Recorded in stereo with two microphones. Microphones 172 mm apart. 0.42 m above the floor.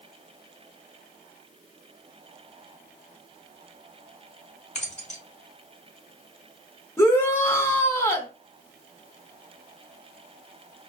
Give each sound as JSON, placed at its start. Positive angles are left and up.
{"t": 4.8, "sound": "keys jangling", "side_deg": 40, "distance_m": 0.9}
{"t": 7.0, "sound": "a shout", "side_deg": 15, "distance_m": 0.8}